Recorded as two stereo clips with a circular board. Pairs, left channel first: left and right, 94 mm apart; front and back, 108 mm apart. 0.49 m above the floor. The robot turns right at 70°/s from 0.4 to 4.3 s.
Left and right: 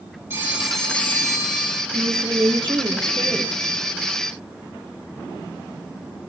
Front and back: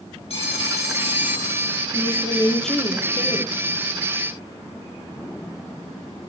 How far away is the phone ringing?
About 2.5 m.